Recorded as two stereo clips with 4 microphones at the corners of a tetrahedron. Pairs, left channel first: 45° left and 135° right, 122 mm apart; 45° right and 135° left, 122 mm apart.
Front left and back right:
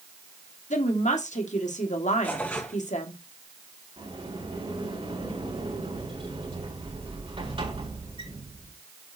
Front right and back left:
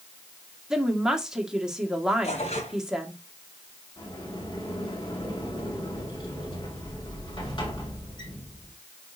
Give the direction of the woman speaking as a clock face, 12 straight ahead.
10 o'clock.